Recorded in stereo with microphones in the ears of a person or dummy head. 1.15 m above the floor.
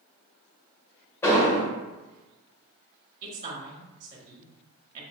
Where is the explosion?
15° left (ahead or behind), 1.4 m.